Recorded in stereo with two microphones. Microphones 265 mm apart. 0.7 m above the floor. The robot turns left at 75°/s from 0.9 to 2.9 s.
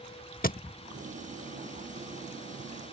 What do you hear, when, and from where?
0.4 s a thud: 35° left (ahead or behind)